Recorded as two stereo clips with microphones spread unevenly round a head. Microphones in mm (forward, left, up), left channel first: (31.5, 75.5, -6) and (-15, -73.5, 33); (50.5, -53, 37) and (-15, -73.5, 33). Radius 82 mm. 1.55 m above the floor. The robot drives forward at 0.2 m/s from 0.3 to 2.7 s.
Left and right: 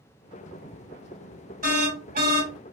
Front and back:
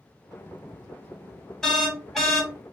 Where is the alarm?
65° right, 2 m; by 2.5 s 70° right, 1.9 m.